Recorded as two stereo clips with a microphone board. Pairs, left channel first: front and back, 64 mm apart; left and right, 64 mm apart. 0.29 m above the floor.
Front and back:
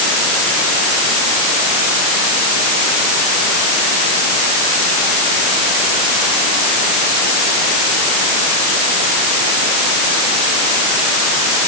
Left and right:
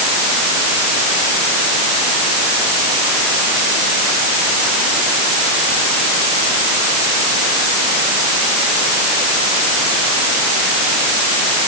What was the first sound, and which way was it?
Only background noise.